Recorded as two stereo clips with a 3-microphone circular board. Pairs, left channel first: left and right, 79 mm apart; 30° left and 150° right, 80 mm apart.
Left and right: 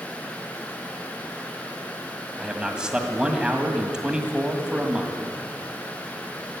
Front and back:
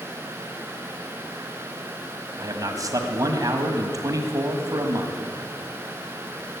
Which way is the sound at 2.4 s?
170° right.